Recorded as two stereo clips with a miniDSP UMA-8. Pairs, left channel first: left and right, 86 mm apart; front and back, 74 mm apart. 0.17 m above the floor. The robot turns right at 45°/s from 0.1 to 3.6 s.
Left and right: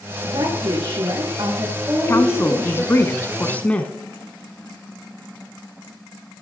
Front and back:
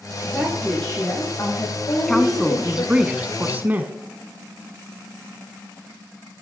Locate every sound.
0.2 s a woman speaking: 100° right, 7.5 m; by 2.9 s 20° left, 7.5 m
2.1 s a woman speaking: 75° left, 1.2 m; by 3.9 s 145° left, 1.2 m